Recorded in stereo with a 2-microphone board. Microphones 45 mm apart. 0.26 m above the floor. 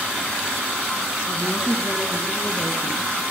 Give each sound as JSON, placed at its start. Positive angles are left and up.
{"t": 1.3, "sound": "a woman speaking", "side_deg": -10, "distance_m": 4.0}